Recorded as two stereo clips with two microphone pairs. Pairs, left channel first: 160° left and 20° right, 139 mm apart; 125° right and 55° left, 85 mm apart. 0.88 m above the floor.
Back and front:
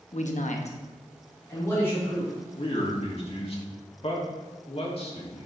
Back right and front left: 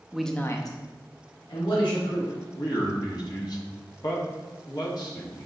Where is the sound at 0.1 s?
135° left, 0.9 m; by 2.3 s 125° right, 3 m.